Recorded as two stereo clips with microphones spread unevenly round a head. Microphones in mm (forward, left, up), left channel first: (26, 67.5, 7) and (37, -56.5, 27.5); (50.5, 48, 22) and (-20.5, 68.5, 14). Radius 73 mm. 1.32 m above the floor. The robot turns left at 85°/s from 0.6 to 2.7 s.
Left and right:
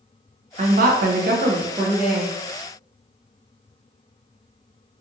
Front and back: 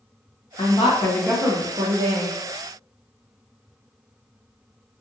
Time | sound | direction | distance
0.6 | a woman speaking | 50° right | 0.6 m